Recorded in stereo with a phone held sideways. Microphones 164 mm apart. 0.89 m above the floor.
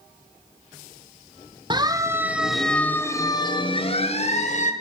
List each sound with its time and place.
1.7 s a siren: 30° right (ahead or behind), 2 m; by 4.7 s 50° left (ahead or behind), 3.5 m